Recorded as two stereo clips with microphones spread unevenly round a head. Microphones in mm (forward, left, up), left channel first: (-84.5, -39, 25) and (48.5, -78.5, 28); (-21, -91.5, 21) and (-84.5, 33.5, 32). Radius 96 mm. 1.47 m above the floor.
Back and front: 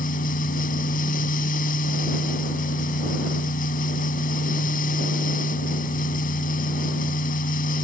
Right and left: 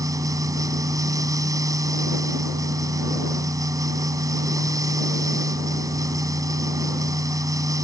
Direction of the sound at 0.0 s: Straight behind.